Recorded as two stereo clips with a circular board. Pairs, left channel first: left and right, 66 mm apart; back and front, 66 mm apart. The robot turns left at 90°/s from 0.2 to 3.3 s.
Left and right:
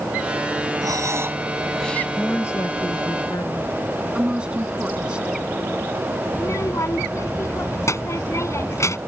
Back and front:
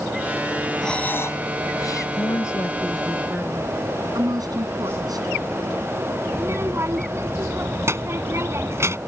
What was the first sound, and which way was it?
Breathing, 95° right.